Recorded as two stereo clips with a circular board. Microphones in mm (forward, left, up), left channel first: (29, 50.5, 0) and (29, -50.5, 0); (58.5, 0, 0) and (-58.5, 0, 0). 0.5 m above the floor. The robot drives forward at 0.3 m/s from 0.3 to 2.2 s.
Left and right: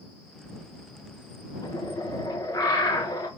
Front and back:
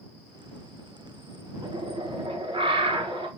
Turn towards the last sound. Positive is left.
turn(degrees=145)